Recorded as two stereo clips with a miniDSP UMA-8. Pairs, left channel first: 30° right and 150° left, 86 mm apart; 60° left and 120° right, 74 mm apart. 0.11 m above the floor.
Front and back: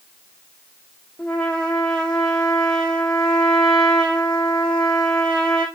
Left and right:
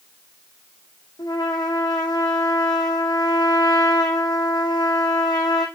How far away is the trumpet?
About 2 m.